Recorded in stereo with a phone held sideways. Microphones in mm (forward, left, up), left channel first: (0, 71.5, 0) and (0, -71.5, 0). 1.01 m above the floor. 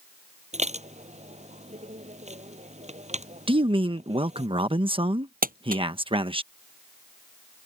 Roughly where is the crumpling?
Right.